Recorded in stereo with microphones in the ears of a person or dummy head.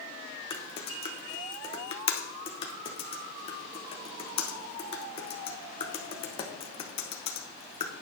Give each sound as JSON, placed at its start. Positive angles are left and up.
{"t": 0.5, "sound": "typing on a keyboard", "side_deg": 30, "distance_m": 1.1}